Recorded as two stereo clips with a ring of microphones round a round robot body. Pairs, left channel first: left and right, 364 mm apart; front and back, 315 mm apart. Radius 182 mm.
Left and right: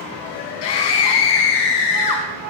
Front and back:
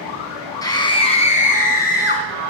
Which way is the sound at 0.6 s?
80° left.